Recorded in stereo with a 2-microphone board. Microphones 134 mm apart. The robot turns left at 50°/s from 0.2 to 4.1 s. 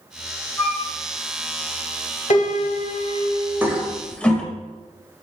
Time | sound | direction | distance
0.6 | a flute | 20° left (ahead or behind) | 1.7 m
2.3 | a piano | 105° left | 0.6 m
3.6 | a toilet flushing | 15° right (ahead or behind) | 0.6 m